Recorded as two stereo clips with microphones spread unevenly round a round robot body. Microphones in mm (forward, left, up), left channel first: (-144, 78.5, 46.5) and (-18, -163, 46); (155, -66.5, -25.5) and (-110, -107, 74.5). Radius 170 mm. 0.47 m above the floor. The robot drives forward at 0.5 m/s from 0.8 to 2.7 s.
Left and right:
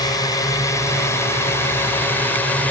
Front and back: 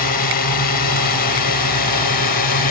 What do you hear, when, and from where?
0.0 s a drone: 40° left; by 2.7 s 35° left